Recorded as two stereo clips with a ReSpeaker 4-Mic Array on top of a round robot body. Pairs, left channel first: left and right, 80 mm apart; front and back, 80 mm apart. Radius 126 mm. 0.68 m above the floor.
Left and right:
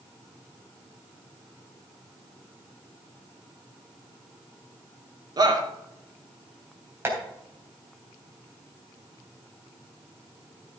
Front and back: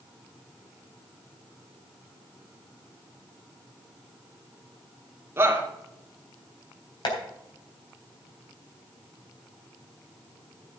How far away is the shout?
About 2.5 m.